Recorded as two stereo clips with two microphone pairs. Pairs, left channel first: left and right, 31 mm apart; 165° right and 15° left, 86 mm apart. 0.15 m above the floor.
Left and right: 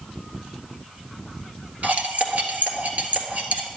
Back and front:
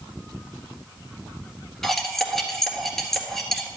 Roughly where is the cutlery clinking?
Right.